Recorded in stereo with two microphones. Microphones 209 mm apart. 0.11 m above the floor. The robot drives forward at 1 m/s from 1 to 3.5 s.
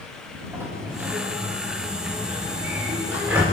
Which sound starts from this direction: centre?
A sliding door, at 0.5 s.